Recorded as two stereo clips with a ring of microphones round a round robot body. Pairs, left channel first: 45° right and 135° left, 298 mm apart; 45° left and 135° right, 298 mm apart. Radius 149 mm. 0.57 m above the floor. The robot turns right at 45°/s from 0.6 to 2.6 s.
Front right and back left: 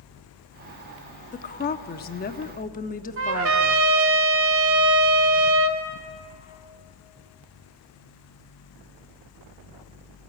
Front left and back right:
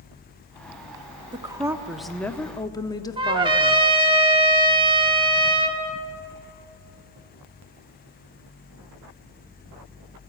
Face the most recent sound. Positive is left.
turn(degrees=155)